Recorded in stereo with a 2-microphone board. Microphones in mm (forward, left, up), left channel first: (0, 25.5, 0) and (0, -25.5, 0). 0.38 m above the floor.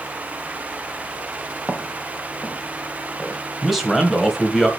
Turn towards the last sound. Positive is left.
turn(degrees=-5)  # may be behind; listen again after turning